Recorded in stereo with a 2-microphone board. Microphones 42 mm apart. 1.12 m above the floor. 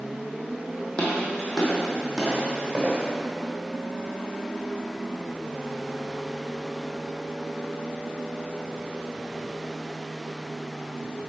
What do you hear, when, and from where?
1.0 s footsteps: 25° left (ahead or behind), 2.0 m; by 3.1 s 15° right (ahead or behind), 2.5 m